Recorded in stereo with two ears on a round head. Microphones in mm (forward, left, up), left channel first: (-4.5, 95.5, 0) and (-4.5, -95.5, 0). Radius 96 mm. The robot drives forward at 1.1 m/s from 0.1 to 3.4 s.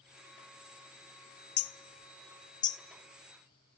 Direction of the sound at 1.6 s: 70° left (ahead or behind).